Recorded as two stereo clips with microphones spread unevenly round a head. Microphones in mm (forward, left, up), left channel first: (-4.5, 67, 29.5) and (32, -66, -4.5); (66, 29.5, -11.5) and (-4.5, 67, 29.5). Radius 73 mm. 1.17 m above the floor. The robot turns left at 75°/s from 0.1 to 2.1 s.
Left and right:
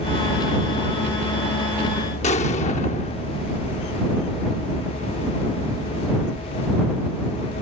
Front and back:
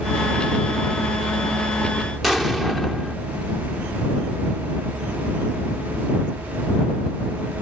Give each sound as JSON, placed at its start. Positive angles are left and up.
{"t": 2.2, "sound": "an explosion", "azimuth_deg": 70}